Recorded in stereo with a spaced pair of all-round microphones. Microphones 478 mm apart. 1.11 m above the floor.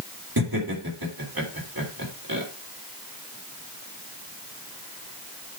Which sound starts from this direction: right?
Laughter, at 0.4 s.